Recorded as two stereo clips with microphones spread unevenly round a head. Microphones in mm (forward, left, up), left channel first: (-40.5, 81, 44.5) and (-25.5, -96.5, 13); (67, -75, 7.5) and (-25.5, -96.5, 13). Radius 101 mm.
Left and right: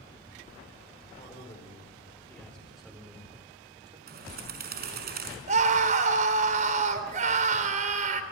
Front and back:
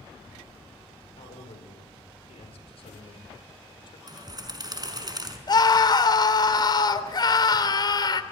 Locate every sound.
1.2 s a man speaking: 30° left, 4.5 m; by 4.0 s 20° right, 4.5 m
4.1 s a bird: 120° right, 5 m
5.5 s a scream: 30° right, 3 m